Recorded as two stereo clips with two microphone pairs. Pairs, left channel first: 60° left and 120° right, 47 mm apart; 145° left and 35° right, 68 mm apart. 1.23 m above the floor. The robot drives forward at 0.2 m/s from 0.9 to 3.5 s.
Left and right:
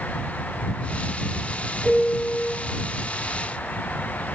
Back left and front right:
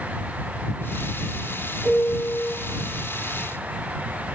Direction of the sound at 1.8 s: 30° right.